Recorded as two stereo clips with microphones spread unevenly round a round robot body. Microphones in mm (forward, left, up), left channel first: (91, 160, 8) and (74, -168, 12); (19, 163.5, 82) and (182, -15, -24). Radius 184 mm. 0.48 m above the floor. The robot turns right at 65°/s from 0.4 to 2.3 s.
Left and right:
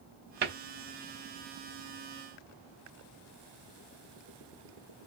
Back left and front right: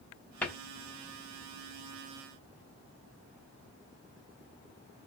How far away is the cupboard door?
About 1.0 m.